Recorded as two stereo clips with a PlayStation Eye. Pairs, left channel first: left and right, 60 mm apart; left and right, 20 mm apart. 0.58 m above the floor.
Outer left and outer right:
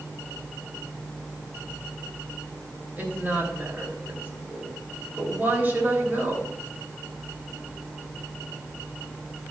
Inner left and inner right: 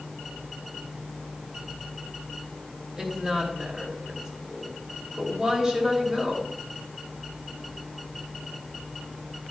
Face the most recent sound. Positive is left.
turn(degrees=-30)  # may be behind; listen again after turning